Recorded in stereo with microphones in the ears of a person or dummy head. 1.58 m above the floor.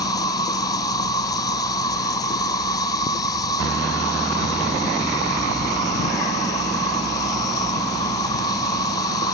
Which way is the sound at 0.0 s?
20° left (ahead or behind).